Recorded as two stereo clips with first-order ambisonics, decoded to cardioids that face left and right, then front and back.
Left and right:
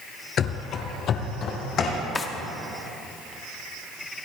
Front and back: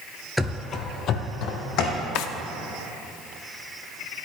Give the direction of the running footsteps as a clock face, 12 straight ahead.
9 o'clock.